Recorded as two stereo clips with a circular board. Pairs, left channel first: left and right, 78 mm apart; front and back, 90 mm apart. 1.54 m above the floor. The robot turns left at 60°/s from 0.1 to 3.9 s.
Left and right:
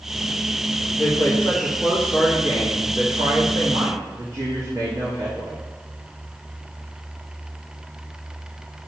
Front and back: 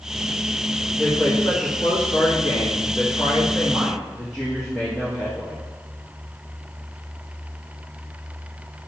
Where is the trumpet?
No trumpet in this recording.